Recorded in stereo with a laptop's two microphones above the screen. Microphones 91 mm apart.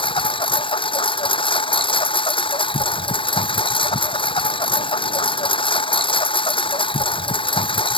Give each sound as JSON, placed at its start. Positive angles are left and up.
{"t": 0.0, "sound": "a lawn mower", "side_deg": 70}